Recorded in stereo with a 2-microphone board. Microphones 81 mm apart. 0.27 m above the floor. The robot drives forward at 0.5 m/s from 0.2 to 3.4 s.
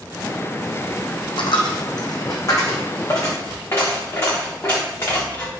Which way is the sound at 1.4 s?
75° left (ahead or behind).